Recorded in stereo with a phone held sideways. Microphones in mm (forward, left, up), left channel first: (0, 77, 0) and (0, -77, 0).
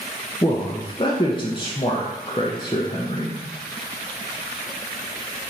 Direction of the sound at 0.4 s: 30° left (ahead or behind).